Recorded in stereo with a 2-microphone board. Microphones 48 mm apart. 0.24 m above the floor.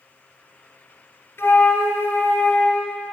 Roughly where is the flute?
Left.